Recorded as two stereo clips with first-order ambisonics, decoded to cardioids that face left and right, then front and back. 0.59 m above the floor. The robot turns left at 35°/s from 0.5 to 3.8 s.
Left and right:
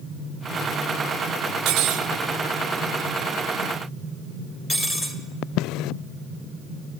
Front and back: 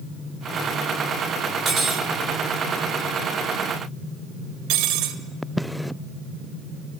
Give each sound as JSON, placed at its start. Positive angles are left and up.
{"t": 1.6, "sound": "cutlery clinking", "azimuth_deg": -115, "distance_m": 1.1}